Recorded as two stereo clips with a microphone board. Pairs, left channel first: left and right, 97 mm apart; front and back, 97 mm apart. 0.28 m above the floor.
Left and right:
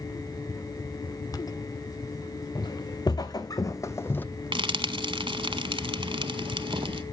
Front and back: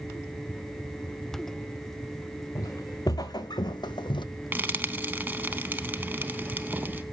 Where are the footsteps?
50° left, 1.4 m; by 4.2 s 20° left, 0.6 m.